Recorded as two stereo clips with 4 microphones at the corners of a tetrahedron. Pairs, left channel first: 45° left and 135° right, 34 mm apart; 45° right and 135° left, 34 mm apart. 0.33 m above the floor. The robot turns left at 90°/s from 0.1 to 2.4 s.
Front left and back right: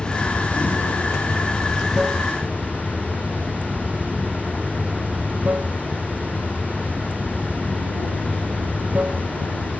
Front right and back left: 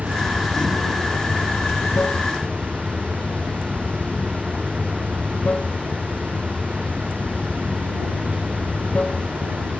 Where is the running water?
110° left; by 9.8 s 95° right.